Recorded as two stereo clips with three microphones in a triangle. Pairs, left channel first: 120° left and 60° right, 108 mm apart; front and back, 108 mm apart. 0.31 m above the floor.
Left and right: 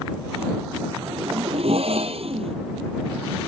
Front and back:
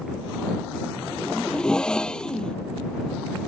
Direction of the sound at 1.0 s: 85° right.